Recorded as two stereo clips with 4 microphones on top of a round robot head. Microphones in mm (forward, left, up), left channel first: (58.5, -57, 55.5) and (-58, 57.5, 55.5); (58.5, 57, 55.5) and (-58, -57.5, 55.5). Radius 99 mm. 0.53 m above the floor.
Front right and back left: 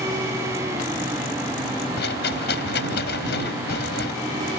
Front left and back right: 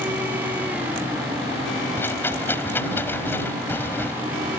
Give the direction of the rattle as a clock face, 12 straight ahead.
1 o'clock.